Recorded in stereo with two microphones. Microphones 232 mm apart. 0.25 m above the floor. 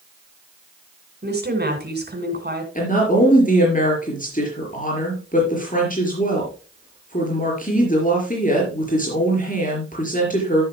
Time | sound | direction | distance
1.2 | a woman speaking | 45° right (ahead or behind) | 3 m
2.8 | a woman speaking | 35° left (ahead or behind) | 4.5 m